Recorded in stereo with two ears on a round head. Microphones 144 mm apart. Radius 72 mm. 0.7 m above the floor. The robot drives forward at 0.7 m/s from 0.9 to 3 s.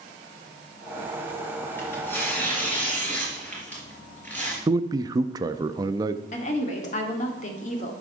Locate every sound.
1.8 s tearing paper: 15° left (ahead or behind), 3 m; by 4.6 s 10° left (ahead or behind), 3.5 m
4.7 s a man speaking: 25° right (ahead or behind), 0.5 m
6.3 s a woman speaking: 45° left (ahead or behind), 2 m